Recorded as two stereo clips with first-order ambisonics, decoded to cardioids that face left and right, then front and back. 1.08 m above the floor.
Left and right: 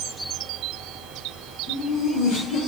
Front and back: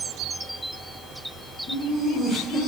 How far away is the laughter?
About 1.7 m.